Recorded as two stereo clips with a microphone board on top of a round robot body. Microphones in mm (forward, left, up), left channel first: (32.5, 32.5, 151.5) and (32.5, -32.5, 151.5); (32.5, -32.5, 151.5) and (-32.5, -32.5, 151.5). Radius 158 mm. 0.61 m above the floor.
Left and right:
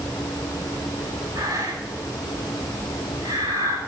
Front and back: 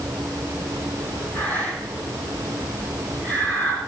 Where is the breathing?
65° right, 8 m.